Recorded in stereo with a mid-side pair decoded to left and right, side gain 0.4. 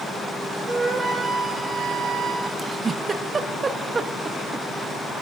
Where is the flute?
45° right, 2 m.